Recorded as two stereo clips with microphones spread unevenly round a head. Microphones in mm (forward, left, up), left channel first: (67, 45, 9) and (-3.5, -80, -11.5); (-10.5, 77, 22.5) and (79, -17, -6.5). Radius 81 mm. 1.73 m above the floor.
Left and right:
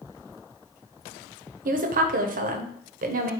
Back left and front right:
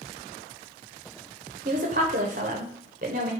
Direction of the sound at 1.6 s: 95° right.